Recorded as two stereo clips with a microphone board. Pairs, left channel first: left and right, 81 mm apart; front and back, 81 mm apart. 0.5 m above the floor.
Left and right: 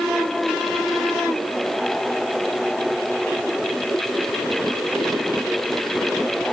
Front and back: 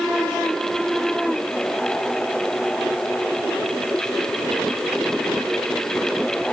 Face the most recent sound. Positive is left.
No sound to turn to.